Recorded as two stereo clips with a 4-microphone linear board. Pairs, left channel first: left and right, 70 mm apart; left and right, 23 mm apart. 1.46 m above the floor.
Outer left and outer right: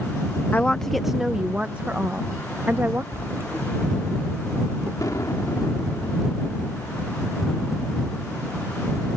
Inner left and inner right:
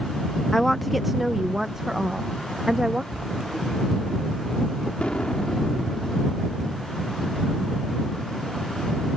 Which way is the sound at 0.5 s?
25° left (ahead or behind).